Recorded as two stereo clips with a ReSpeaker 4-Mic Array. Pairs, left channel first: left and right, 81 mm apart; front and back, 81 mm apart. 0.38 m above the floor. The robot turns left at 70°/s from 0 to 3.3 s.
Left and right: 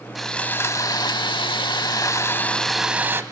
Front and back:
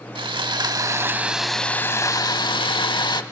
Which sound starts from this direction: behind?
Sawing, at 0.1 s.